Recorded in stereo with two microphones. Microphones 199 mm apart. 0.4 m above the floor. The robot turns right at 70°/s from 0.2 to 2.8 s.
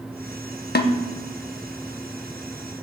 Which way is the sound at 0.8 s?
55° left (ahead or behind).